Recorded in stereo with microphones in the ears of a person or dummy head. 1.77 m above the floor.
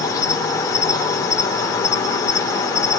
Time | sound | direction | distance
0.0 | an insect | 15° left (ahead or behind) | 1.9 m